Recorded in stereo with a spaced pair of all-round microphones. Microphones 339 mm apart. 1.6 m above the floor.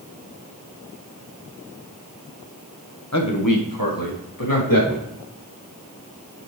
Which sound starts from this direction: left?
A man speaking, at 3.1 s.